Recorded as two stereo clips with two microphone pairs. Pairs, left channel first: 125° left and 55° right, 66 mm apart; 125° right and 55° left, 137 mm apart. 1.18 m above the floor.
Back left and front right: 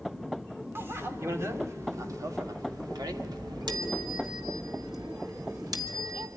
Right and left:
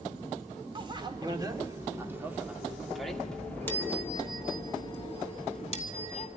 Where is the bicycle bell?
5° left, 2.5 m; by 6.3 s 85° right, 2.5 m.